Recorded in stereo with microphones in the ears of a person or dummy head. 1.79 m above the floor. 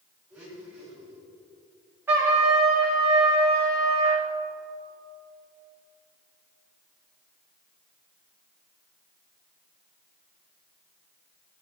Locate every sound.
0.3 s a blender: 10° right (ahead or behind), 4 m
2.1 s a trumpet: 20° right (ahead or behind), 2.5 m